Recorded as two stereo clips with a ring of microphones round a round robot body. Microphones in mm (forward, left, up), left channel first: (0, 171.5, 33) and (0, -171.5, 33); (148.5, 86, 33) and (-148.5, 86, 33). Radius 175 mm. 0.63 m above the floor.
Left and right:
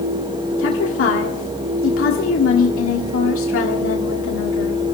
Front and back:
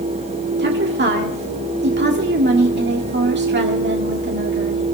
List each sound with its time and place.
0.6 s a woman speaking: 135° left, 1.6 m